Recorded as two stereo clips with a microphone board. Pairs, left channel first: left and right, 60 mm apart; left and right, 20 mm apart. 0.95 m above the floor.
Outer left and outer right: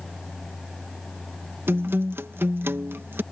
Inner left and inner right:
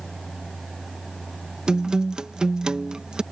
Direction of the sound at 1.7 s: 40° right (ahead or behind).